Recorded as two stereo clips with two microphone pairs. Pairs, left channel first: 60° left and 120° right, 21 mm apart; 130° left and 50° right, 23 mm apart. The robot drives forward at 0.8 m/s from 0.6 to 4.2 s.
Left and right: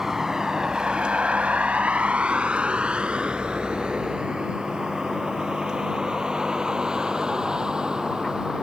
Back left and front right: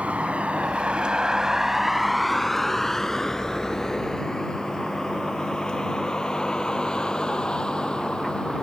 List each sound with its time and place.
0.0 s a vehicle: 55° right; by 8.6 s 175° right